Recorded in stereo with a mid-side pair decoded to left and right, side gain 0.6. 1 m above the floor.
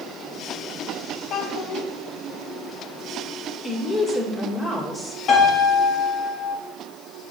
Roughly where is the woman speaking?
Ahead left.